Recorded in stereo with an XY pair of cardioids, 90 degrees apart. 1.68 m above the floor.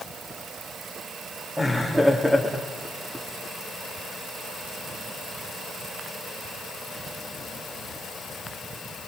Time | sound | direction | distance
1.6 | laughter | 5° right | 3.5 m